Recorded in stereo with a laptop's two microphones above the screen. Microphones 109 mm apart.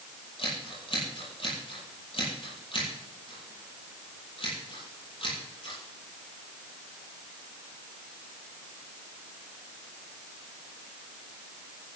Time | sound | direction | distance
0.4 | scissors | 55° left (ahead or behind) | 7.5 m